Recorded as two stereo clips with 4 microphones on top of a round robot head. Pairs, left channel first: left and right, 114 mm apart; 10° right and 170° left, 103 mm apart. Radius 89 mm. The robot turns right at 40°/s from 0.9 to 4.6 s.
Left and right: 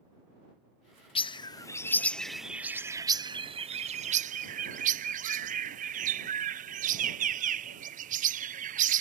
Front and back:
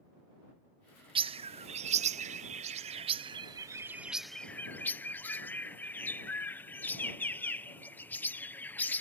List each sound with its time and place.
1.1 s a bird: 130° left; by 9.0 s 90° right